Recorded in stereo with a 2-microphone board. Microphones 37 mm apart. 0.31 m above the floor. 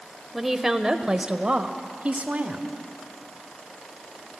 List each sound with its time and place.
0.3 s a woman speaking: centre (ahead or behind), 1.1 m; by 2.7 s 50° right (ahead or behind), 1.6 m